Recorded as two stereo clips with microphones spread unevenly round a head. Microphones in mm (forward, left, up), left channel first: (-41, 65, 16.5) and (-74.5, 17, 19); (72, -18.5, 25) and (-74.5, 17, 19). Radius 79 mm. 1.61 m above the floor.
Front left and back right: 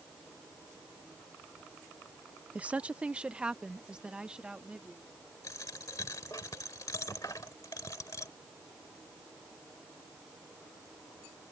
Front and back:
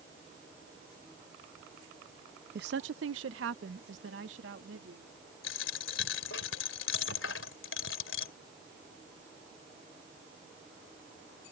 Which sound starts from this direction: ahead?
A dropped coin, at 5.4 s.